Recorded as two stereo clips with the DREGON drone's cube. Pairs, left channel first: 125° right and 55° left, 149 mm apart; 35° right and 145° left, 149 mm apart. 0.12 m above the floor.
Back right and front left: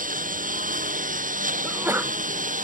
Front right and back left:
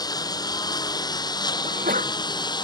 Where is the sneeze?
130° left.